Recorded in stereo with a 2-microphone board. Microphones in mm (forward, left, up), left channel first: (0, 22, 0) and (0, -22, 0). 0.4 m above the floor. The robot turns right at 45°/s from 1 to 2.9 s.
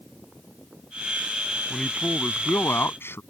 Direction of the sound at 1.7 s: 15° left.